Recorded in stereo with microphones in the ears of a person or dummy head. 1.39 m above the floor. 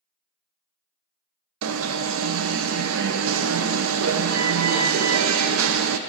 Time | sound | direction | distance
1.6 | an alarm | 75° right (ahead or behind) | 0.5 m